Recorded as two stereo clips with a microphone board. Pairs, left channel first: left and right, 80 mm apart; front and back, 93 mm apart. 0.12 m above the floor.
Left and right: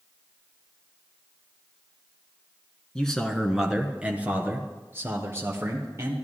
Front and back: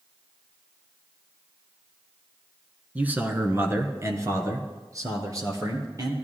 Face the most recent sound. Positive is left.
turn(degrees=-135)